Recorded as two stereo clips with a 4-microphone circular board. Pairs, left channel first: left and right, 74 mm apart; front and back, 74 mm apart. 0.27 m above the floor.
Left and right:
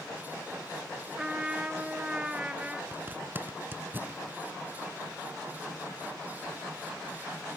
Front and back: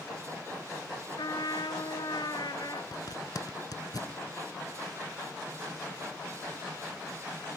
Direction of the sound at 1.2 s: 15° right.